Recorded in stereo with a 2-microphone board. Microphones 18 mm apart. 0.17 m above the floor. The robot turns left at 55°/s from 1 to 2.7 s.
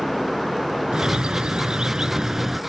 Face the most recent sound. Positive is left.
turn(degrees=-165)